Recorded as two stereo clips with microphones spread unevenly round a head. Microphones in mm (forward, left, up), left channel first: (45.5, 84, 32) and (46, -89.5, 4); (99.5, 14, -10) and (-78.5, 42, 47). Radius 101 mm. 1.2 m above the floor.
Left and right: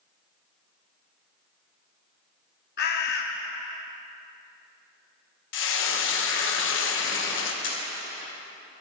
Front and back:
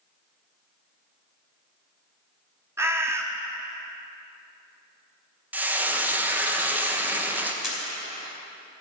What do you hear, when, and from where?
2.8 s a bird: 105° left, 1.0 m
5.5 s frying: 85° left, 1.2 m
7.6 s a camera shutter: 85° left, 2.5 m